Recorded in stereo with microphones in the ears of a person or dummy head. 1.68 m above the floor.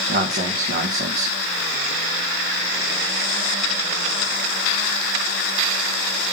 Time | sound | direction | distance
0.1 | a man speaking | 65° right (ahead or behind) | 1.9 m